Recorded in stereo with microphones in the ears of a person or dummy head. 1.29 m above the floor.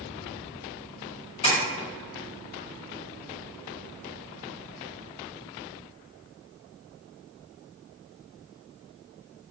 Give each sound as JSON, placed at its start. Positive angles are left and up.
{"t": 1.4, "sound": "tapping", "side_deg": 30, "distance_m": 1.3}